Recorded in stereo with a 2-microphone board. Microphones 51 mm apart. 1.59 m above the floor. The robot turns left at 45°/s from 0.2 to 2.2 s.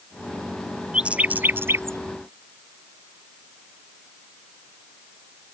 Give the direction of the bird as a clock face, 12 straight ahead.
1 o'clock.